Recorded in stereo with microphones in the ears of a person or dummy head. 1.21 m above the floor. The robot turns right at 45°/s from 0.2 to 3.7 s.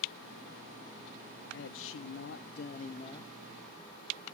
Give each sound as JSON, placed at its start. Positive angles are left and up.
{"t": 1.5, "sound": "a man speaking", "azimuth_deg": 75, "distance_m": 0.6}